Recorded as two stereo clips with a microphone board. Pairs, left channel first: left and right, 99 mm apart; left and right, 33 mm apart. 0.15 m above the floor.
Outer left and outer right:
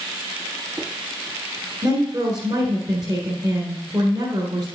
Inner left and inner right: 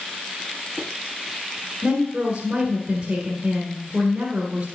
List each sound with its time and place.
1.8 s a woman speaking: 40° right (ahead or behind), 1.8 m